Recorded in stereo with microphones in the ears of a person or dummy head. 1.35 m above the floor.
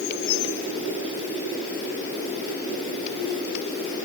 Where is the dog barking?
I don't hear a dog barking.